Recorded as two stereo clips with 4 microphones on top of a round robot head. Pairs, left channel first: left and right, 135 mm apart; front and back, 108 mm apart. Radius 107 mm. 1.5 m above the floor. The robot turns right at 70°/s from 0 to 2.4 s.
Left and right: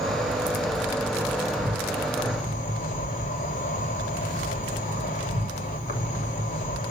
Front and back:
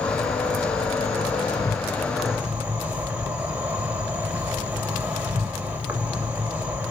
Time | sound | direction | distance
0.0 | an insect | 65° right | 2 m